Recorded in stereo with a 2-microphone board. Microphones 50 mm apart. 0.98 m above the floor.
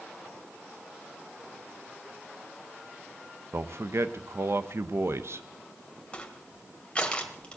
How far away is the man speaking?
About 0.7 m.